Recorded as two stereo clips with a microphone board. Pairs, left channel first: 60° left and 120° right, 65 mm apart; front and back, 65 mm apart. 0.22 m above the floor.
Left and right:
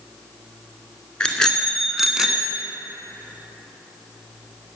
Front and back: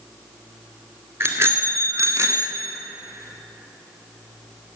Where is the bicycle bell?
135° left, 2 m; by 2.6 s 175° left, 1.5 m.